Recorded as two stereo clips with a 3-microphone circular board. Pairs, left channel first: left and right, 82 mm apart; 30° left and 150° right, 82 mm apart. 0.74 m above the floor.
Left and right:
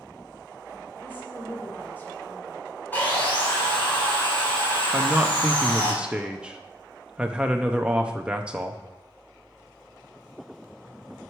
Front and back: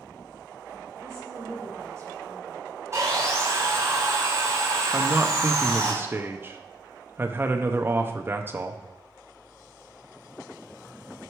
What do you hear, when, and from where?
1.0 s a woman speaking: 155° left, 2.5 m
2.9 s sawing: 160° left, 3 m
4.9 s a man speaking: 150° right, 0.6 m